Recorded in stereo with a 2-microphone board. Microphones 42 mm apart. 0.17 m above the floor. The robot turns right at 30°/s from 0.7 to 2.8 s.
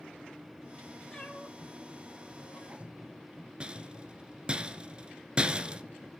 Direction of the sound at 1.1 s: 15° left (ahead or behind).